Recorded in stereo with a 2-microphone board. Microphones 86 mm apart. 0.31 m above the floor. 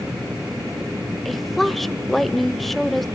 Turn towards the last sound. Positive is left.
turn(degrees=0)  # may be behind; listen again after turning